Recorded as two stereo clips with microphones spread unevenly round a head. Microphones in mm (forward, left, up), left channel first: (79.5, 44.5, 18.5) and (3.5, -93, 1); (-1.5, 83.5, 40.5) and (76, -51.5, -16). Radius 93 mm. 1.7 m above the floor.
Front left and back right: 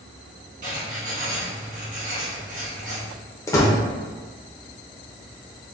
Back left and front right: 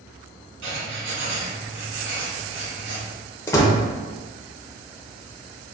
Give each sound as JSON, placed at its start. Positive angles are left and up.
{"t": 0.6, "sound": "writing", "azimuth_deg": -90, "distance_m": 1.3}
{"t": 3.5, "sound": "a door slam", "azimuth_deg": 110, "distance_m": 0.7}